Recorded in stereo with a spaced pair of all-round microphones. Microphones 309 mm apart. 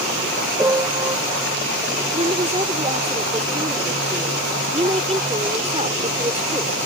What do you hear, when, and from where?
0.6 s a piano: 10° right (ahead or behind)
2.1 s a woman speaking: 20° right (ahead or behind)